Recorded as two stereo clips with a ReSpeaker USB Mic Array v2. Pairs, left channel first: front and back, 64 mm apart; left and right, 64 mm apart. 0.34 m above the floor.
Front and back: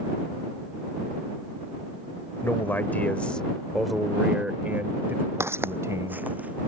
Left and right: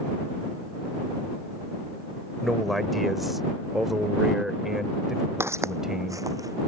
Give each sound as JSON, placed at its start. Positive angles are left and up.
{"t": 2.4, "sound": "a man speaking", "azimuth_deg": 0}
{"t": 5.4, "sound": "footsteps", "azimuth_deg": -135}